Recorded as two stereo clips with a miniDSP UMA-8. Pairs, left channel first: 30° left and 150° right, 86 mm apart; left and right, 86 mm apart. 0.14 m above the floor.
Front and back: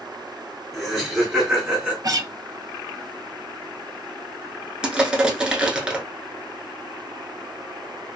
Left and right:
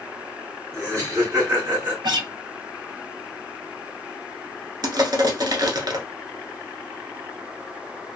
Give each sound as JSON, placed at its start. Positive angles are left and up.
{"t": 0.7, "sound": "laughter", "azimuth_deg": -65, "distance_m": 1.9}
{"t": 2.0, "sound": "a guitar", "azimuth_deg": -110, "distance_m": 0.5}
{"t": 4.8, "sound": "crushing", "azimuth_deg": -70, "distance_m": 0.8}